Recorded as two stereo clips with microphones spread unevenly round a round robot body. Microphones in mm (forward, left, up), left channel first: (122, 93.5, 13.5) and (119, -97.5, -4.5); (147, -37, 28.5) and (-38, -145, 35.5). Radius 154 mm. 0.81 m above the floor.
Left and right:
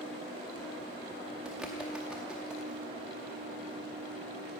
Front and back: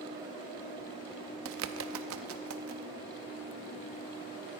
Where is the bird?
175° right, 0.6 m.